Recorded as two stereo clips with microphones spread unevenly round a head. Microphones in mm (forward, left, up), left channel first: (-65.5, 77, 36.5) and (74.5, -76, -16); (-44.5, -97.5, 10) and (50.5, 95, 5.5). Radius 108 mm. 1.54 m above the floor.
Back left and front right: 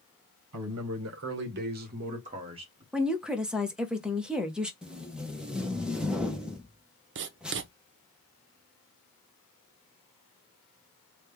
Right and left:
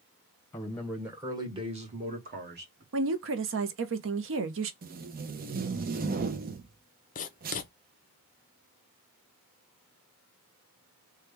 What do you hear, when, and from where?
0.5 s a man speaking: 35° right, 1.1 m; by 2.8 s 25° left, 1.6 m
2.9 s a woman speaking: 35° left, 0.8 m
4.8 s tape being pulled: 55° left, 0.6 m
7.2 s writing: 80° right, 0.5 m